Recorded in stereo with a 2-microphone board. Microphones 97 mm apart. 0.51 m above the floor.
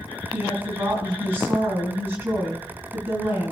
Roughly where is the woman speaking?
Right.